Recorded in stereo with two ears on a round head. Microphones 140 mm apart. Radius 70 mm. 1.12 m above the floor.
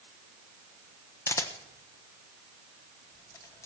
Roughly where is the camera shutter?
Centre.